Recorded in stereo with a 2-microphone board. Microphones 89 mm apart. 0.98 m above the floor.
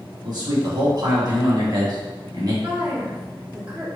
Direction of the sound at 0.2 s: 55° right (ahead or behind).